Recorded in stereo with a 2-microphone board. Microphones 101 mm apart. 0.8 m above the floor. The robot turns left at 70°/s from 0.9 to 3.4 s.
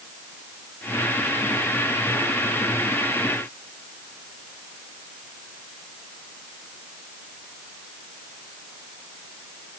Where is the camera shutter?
No camera shutter in this recording.